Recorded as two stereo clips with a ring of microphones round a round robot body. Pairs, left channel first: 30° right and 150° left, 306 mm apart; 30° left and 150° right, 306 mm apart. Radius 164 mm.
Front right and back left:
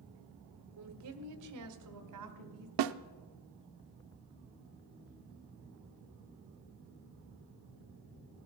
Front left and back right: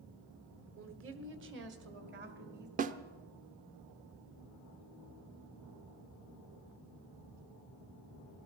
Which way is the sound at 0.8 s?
170° left.